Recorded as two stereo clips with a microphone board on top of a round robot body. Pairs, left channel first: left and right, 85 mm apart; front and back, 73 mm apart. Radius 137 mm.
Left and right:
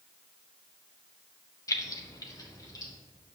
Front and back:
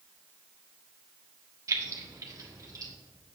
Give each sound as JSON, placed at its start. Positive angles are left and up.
{"t": 1.7, "sound": "keys jangling", "azimuth_deg": 140, "distance_m": 0.8}